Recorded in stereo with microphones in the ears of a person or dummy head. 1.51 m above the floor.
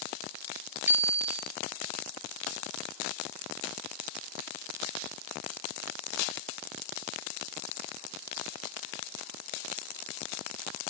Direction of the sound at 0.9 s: 5° right (ahead or behind).